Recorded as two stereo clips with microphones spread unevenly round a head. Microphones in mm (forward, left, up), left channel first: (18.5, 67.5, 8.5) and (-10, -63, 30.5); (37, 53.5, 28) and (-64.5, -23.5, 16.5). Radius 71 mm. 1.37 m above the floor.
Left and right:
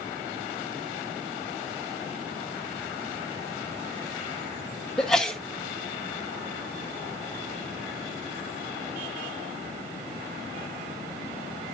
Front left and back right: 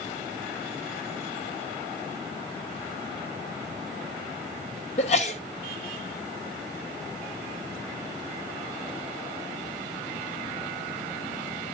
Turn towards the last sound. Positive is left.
turn(degrees=-10)